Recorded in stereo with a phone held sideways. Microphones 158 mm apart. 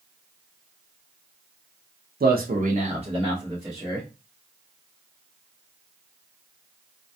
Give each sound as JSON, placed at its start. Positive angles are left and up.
{"t": 2.2, "sound": "a man speaking", "side_deg": -70, "distance_m": 0.5}